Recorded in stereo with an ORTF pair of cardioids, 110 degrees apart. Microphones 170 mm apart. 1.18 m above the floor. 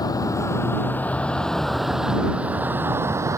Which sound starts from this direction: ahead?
A vehicle, at 0.0 s.